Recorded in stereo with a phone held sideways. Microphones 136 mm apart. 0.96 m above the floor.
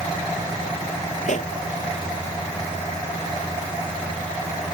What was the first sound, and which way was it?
A pop, 65° left (ahead or behind).